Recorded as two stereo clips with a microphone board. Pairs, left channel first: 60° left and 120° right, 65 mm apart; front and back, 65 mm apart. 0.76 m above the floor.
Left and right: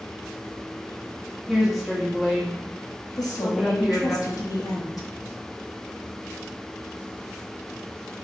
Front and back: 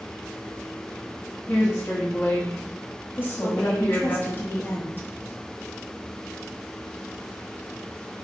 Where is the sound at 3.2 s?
50° left, 0.9 m.